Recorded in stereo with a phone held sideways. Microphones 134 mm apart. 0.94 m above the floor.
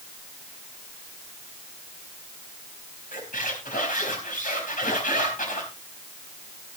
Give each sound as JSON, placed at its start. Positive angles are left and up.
{"t": 3.1, "sound": "a squeak", "side_deg": 80, "distance_m": 4.0}